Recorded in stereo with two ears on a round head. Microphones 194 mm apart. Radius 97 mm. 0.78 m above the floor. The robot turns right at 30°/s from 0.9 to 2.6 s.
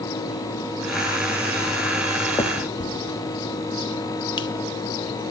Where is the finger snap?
15° left (ahead or behind), 0.7 m; by 5.3 s 20° left (ahead or behind), 0.7 m.